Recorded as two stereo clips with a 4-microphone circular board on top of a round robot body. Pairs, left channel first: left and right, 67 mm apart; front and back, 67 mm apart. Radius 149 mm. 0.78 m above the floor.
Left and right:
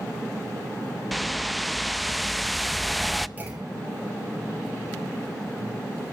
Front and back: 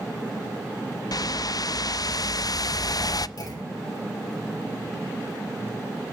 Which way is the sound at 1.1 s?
Straight ahead.